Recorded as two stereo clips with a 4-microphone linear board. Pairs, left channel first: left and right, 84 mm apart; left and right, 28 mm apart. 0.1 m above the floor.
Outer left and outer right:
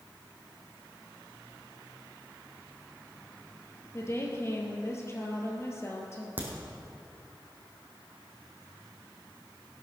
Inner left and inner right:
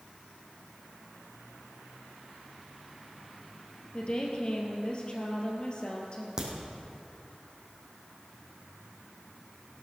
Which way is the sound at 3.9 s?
35° left (ahead or behind).